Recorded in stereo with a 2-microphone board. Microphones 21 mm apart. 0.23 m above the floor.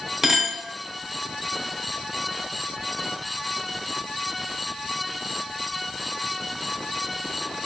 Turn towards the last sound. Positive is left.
turn(degrees=-20)  # may be behind; listen again after turning